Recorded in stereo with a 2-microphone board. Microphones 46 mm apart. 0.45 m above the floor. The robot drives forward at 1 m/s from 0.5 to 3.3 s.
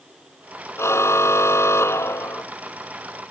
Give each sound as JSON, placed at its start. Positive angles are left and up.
{"t": 0.8, "sound": "a car horn", "side_deg": 85}